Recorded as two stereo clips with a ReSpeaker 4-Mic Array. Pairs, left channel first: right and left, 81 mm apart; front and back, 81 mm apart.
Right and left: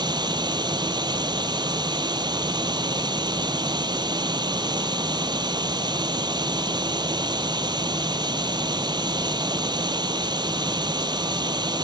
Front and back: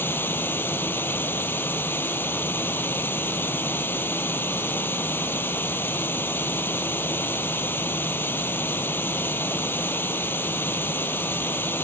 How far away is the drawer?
No drawer in this recording.